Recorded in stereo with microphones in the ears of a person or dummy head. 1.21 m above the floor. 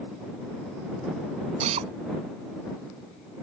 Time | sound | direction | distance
1.6 | a drill | 35° right (ahead or behind) | ?